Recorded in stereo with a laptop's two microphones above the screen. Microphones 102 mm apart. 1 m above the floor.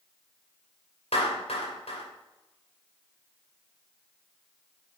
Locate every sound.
1.1 s a clap: 80° left, 3 m